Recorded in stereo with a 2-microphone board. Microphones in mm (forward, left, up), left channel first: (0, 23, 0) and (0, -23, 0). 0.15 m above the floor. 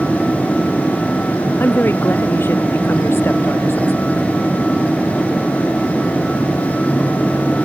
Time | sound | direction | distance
1.6 | a woman speaking | 55° left (ahead or behind) | ?